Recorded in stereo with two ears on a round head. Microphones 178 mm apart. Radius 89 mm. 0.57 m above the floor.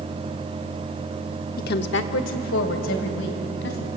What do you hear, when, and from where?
1.6 s a woman speaking: 45° left (ahead or behind), 0.9 m; by 3.9 s 65° left (ahead or behind), 4 m